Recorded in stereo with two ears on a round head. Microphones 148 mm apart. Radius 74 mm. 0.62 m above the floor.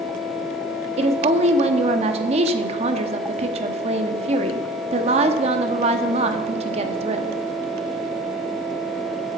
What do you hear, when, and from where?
1.0 s a woman speaking: 40° right (ahead or behind), 0.8 m